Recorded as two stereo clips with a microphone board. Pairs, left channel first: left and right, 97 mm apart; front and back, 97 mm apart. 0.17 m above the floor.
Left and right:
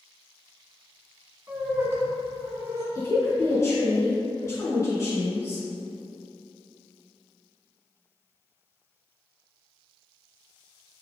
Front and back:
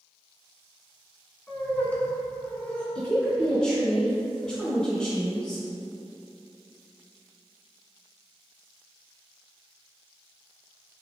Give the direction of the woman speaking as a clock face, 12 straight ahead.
10 o'clock.